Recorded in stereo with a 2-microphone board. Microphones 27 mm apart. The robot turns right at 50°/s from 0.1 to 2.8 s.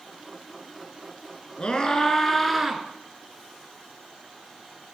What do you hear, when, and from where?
1.6 s a scream: 130° left, 3 m; by 2.8 s 170° right, 3 m